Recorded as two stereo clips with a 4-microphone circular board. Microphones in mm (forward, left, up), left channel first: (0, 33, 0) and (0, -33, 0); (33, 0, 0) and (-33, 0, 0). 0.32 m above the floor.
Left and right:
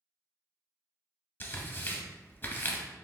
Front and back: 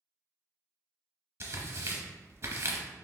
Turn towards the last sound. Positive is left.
turn(degrees=140)